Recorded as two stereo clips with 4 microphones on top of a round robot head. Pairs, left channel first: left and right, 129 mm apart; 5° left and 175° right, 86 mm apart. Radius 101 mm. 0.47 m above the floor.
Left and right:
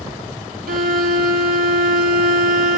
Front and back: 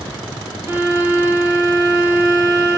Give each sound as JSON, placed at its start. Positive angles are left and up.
{"t": 0.7, "sound": "a violin", "azimuth_deg": -100, "distance_m": 2.5}